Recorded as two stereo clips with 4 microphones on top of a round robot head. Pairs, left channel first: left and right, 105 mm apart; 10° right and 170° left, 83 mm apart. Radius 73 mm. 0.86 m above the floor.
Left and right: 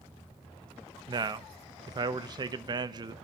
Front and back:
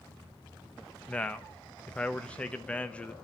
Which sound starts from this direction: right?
A man speaking, at 1.1 s.